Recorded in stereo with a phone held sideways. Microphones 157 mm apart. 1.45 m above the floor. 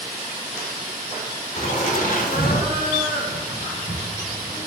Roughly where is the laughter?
Left.